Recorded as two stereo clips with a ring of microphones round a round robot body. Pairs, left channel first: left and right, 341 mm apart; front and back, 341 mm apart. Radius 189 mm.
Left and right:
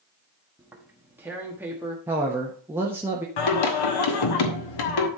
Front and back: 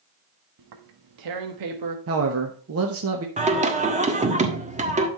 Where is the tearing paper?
175° right, 1.3 m.